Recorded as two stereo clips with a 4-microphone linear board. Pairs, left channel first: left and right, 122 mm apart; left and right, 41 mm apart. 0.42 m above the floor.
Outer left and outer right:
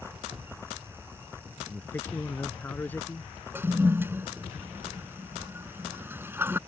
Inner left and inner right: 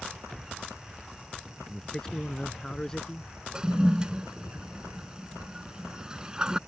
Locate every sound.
1.7 s a man speaking: 15° left (ahead or behind)
3.5 s a toilet flushing: 15° right (ahead or behind)